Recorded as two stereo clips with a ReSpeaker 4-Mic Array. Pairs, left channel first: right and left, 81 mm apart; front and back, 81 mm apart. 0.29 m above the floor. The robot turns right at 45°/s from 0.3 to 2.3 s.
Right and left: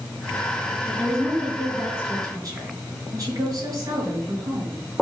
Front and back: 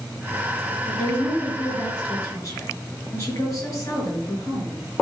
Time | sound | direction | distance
0.9 | a woman speaking | 15° right | 4.5 m